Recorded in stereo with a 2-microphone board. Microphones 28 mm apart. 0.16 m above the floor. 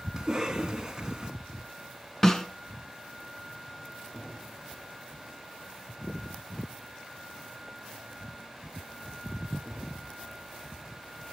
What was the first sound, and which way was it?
A cough, 10° right (ahead or behind).